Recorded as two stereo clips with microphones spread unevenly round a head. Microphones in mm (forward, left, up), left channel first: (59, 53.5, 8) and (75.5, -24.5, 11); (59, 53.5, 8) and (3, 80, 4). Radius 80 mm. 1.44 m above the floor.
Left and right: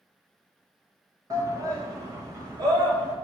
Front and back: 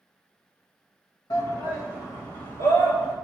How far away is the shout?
About 1.7 m.